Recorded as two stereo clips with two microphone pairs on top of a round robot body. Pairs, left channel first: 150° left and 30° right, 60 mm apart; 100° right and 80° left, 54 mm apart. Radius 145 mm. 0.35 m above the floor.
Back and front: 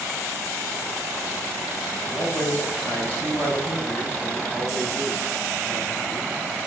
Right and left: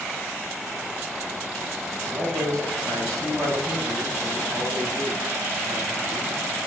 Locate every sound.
1.9 s a man speaking: 85° left, 3.5 m